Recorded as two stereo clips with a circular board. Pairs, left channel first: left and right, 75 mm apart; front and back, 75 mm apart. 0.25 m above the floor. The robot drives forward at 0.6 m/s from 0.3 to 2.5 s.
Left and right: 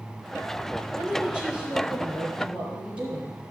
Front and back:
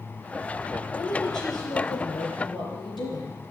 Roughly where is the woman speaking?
Ahead.